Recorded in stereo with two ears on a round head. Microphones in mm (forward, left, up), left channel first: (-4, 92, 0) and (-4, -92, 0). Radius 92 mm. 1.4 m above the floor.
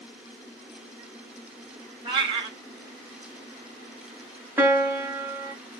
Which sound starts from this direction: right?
A cat meowing, at 2.0 s.